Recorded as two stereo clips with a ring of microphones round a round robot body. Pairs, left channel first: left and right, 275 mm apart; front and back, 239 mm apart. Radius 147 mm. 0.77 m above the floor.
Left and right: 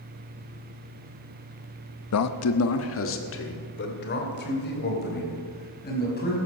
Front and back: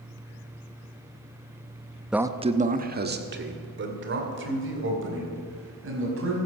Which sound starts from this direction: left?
A man speaking, at 2.1 s.